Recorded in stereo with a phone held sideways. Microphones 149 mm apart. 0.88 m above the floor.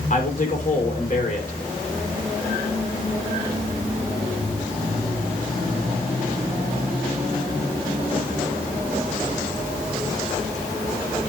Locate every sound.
0.1 s a man speaking: 60° left (ahead or behind), 3.5 m